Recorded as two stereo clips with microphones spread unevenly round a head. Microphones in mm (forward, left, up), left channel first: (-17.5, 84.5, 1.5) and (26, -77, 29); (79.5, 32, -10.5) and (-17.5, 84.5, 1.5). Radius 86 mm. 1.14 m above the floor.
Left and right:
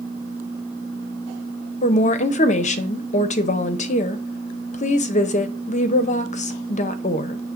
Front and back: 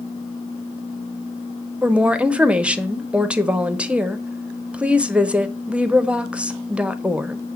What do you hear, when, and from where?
1.8 s a woman speaking: 70° left, 0.5 m